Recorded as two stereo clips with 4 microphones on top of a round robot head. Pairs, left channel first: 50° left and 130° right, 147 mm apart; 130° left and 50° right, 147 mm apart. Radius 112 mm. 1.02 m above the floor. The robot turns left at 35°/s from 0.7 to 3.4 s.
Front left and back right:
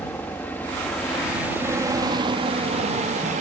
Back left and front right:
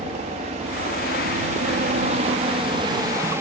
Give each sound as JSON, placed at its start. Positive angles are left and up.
{"t": 0.0, "sound": "a helicopter", "azimuth_deg": -25}